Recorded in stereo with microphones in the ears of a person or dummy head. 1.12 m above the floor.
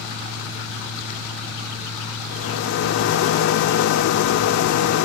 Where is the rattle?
65° left (ahead or behind), 1.2 m.